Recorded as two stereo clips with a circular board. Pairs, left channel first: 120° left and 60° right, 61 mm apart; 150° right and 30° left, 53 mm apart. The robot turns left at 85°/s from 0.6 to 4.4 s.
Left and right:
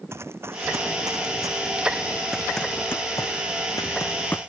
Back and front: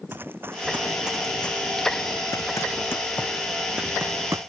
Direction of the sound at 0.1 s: 20° right.